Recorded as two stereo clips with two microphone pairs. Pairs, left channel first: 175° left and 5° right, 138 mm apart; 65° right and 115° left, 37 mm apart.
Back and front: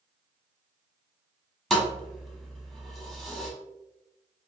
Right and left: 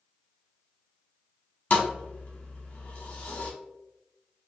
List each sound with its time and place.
1.7 s a thud: 95° right, 0.7 m